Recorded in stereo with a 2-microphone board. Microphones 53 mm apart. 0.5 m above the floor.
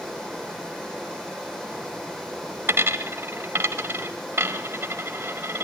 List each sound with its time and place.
0.0 s running water: 10° left (ahead or behind), 8.5 m
2.7 s a dropped coin: 50° right (ahead or behind), 1.2 m